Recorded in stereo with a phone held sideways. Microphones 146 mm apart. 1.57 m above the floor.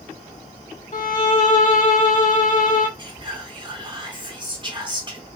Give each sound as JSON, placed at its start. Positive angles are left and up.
{"t": 0.9, "sound": "a violin", "side_deg": 60, "distance_m": 0.6}
{"t": 3.0, "sound": "whispering", "side_deg": -30, "distance_m": 1.1}